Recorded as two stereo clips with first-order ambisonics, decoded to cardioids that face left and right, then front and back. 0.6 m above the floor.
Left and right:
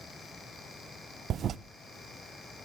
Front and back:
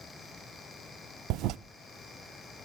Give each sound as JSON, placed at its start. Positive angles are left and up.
{"t": 1.3, "sound": "a toilet flushing", "azimuth_deg": -145, "distance_m": 0.5}